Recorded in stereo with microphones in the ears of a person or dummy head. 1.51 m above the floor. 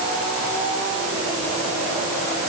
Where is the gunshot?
I don't hear a gunshot.